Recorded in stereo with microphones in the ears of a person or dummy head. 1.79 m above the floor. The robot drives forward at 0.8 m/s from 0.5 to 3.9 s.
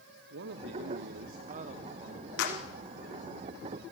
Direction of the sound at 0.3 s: 60° right (ahead or behind).